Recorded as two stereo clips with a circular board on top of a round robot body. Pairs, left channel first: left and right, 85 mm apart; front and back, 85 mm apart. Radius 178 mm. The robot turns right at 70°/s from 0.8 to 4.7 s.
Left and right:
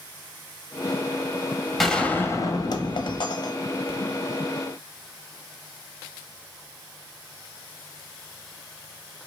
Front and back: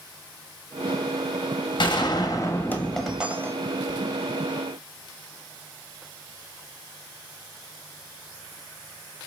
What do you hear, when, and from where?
1.8 s a gunshot: straight ahead, 1.0 m; by 4.0 s 155° left, 1.0 m